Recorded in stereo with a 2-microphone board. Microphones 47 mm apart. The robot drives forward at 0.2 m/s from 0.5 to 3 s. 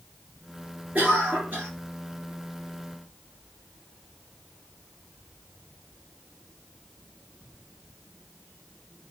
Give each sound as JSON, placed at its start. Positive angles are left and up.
{"t": 0.9, "sound": "a cough", "side_deg": -40, "distance_m": 3.0}